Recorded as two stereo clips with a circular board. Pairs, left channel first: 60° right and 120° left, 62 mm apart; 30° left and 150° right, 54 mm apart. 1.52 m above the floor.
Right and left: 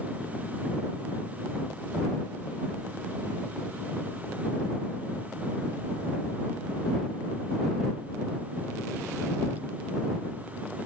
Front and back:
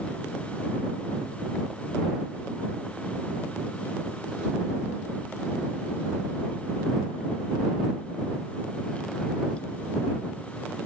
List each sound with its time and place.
Only background noise.